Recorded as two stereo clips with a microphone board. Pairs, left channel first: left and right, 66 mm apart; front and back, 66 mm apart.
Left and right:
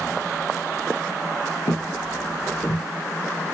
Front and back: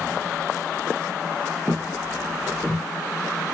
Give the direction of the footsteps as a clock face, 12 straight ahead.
9 o'clock.